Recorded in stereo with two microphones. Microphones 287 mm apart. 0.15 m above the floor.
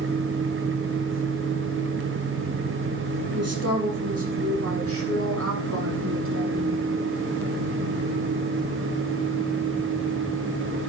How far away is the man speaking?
About 4 m.